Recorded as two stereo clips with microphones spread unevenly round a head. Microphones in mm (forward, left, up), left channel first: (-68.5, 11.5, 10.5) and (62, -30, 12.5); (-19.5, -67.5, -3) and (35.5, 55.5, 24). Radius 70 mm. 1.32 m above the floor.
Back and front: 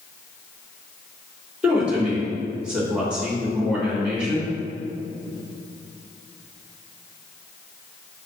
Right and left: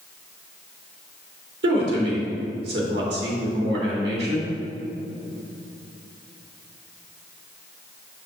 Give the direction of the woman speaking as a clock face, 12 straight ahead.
10 o'clock.